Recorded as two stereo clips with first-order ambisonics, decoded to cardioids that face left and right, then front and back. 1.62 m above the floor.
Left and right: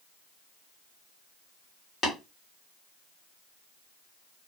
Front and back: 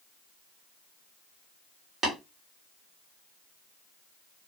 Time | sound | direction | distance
2.0 | tapping | 135° left | 1.5 m